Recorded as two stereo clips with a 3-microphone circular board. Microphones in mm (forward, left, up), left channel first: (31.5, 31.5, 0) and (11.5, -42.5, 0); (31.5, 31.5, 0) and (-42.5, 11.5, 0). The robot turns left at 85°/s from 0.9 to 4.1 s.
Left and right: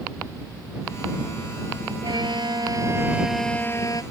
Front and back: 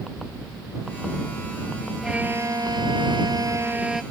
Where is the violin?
80° right; by 4.0 s 110° left.